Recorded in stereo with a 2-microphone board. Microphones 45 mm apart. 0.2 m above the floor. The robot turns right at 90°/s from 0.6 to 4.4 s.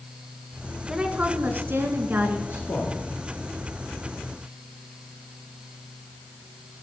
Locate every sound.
0.9 s a woman speaking: 165° right, 1.8 m; by 2.4 s 30° right, 1.8 m
2.5 s a man speaking: 65° left, 4 m; by 3.0 s 115° left, 4 m